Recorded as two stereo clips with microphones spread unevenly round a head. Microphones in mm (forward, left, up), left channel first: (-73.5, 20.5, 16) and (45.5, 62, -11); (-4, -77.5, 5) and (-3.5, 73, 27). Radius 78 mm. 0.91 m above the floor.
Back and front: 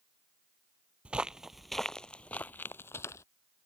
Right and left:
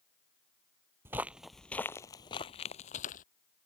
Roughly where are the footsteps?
Behind left.